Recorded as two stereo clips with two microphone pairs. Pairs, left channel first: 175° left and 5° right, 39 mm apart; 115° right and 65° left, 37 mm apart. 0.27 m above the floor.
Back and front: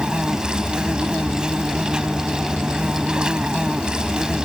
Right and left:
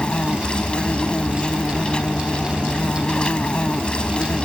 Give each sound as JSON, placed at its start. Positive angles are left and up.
{"t": 0.0, "sound": "an insect", "azimuth_deg": -60}